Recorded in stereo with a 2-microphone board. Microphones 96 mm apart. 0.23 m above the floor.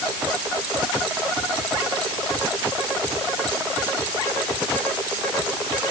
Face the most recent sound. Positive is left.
No sound to turn to.